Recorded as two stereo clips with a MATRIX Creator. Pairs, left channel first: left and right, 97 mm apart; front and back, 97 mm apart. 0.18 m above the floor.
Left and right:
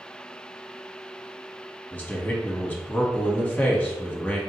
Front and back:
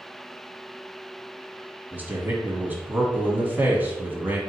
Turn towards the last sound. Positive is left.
turn(degrees=140)